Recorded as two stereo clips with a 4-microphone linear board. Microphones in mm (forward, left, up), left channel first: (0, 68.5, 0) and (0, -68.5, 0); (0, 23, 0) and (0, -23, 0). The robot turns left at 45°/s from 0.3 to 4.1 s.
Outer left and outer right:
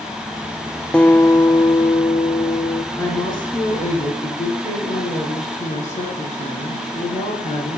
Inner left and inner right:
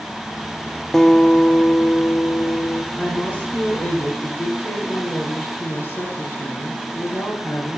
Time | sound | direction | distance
0.9 | a guitar | 175° left | 0.8 m
2.9 | a woman speaking | 160° left | 3 m